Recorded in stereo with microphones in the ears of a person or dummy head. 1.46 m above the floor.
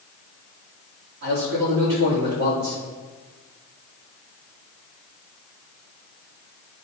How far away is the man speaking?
About 3.5 m.